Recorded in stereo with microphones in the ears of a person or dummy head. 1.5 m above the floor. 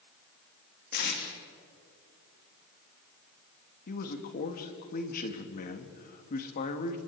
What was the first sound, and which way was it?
Tape being pulled, 60° left (ahead or behind).